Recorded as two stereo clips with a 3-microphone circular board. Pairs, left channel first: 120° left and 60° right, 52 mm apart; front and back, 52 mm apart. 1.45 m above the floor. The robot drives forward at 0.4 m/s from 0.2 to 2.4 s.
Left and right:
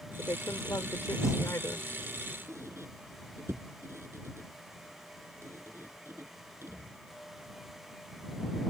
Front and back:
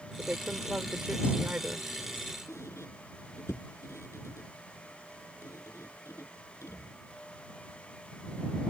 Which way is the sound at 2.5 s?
30° right.